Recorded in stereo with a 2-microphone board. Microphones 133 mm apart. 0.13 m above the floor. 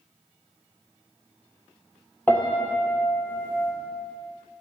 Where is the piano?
15° left (ahead or behind), 1.2 m.